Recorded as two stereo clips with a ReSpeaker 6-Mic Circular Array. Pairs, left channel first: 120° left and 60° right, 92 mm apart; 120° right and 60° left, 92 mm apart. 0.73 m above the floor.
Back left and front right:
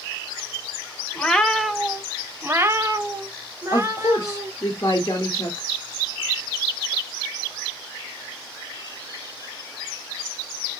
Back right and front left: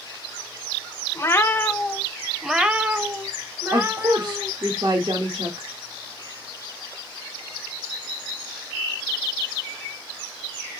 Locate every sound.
1.1 s a cat meowing: 165° right, 0.8 m; by 4.5 s straight ahead, 1.7 m
3.7 s a woman speaking: 75° left, 1.3 m